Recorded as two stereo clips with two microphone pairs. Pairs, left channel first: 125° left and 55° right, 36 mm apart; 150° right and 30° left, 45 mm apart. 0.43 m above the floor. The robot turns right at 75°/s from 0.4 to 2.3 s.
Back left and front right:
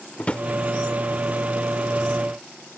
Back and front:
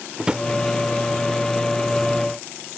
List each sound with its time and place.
0.2 s a drawer: 95° left; by 0.5 s 100° left